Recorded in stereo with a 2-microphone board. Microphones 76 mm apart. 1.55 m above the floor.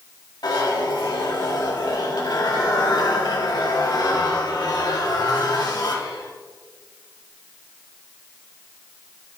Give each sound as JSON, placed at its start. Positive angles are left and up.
{"t": 0.4, "sound": "a zipper", "side_deg": 65, "distance_m": 1.9}